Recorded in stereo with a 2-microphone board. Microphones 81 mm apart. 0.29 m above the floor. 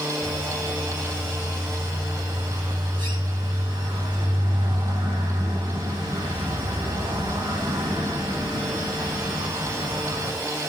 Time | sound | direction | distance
0.2 | a bird | 80° right | 9.5 m